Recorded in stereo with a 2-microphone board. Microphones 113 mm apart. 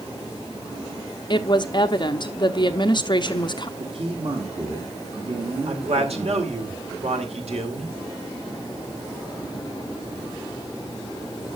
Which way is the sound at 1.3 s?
40° left (ahead or behind).